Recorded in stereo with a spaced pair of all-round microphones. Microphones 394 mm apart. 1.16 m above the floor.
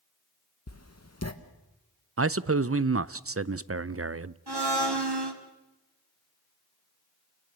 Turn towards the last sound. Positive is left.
turn(degrees=-85)